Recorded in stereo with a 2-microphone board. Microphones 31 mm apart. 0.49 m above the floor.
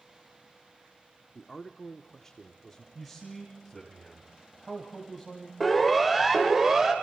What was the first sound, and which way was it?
A man speaking, 20° left (ahead or behind).